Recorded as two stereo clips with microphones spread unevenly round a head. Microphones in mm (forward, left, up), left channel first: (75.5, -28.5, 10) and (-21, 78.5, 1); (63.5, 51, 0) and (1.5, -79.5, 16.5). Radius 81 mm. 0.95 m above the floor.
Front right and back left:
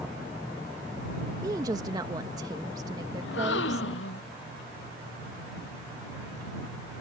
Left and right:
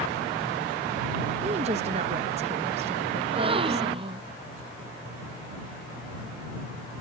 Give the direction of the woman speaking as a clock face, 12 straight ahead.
6 o'clock.